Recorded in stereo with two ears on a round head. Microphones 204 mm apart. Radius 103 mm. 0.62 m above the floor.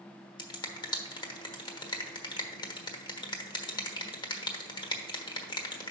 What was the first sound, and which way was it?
A finger snap, 20° left (ahead or behind).